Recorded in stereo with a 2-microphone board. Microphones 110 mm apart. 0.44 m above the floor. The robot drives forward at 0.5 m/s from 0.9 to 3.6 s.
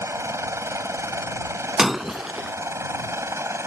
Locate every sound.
0.0 s a helicopter: 25° right (ahead or behind)
1.8 s breaking glass: centre (ahead or behind)